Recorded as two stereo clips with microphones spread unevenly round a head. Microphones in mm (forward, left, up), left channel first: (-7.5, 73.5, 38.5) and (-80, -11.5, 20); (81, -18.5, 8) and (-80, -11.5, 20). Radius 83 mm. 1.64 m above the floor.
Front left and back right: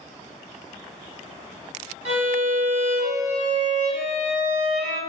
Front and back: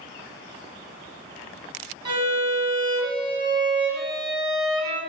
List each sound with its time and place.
2.0 s a violin: 140° right, 1.3 m